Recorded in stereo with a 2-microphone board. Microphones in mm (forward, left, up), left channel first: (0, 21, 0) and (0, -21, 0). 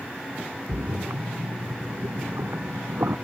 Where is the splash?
75° right (ahead or behind).